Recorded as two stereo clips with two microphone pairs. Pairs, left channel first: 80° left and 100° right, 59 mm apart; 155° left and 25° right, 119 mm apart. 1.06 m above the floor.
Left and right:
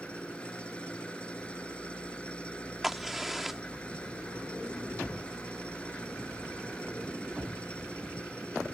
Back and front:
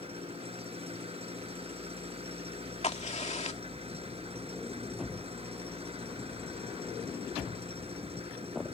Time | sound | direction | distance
0.0 | an engine running | 10° left | ?
2.8 | a crack | 175° left | ?